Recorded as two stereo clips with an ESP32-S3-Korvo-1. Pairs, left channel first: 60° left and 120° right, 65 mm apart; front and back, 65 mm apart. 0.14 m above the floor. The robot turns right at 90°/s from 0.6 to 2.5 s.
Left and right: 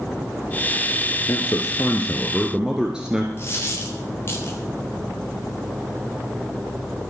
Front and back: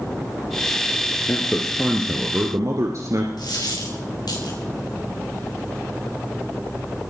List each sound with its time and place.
1.3 s a man speaking: 55° left, 1.8 m; by 3.3 s 165° left, 1.8 m
3.4 s a dropped coin: 5° left, 6 m